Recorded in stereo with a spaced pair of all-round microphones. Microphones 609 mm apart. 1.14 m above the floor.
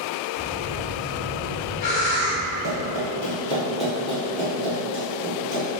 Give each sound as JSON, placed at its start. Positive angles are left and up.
{"t": 0.4, "sound": "breathing", "side_deg": 80, "distance_m": 0.6}
{"t": 2.6, "sound": "running footsteps", "side_deg": 30, "distance_m": 1.2}